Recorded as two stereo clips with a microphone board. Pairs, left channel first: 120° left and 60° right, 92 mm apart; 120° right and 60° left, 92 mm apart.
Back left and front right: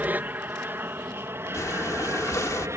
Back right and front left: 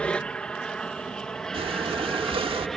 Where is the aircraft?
65° right; by 2.8 s 35° right.